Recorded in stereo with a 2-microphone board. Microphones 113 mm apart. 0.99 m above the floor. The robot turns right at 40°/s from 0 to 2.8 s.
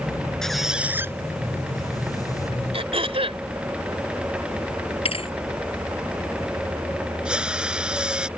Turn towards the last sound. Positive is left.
turn(degrees=-10)  # may be behind; listen again after turning